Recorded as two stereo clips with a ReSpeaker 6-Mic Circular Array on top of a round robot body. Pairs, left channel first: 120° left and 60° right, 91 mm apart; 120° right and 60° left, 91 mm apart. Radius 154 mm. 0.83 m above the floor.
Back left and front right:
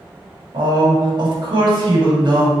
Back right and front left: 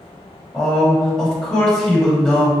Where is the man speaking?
40° right, 1.3 m.